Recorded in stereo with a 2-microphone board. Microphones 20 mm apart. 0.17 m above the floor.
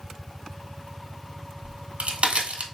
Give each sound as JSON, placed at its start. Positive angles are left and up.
{"t": 1.6, "sound": "a crack", "side_deg": -80, "distance_m": 1.1}